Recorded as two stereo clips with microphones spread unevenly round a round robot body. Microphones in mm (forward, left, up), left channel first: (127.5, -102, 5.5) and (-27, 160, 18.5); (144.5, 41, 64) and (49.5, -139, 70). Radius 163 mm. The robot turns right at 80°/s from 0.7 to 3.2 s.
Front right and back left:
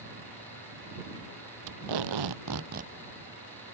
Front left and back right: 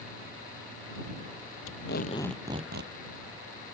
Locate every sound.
1.7 s tape being pulled: 95° left; by 2.9 s 160° right